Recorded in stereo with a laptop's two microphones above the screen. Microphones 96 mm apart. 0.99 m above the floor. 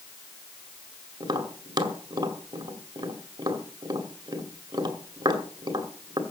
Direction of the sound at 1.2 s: 50° right (ahead or behind).